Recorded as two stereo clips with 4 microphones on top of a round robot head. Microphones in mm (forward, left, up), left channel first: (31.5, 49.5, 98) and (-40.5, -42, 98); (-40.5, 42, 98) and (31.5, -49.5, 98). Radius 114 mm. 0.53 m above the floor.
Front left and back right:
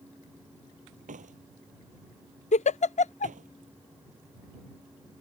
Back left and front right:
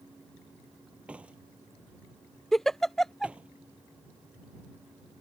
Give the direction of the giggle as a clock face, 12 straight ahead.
11 o'clock.